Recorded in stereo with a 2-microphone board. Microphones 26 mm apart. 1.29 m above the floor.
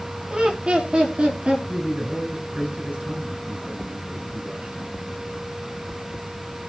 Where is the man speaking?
60° right (ahead or behind), 9 m.